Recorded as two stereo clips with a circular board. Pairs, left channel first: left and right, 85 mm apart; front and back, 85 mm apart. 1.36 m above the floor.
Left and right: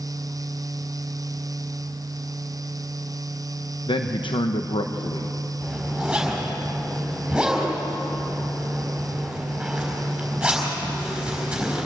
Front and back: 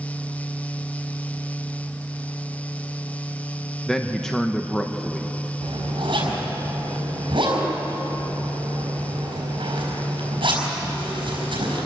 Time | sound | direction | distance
3.9 | a man speaking | 85° left | 1.0 m
5.6 | a zipper | 170° right | 5 m